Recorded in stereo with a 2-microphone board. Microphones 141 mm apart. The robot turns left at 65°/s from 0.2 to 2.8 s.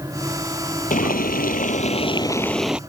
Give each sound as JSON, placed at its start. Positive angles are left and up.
{"t": 0.9, "sound": "boiling", "azimuth_deg": 115}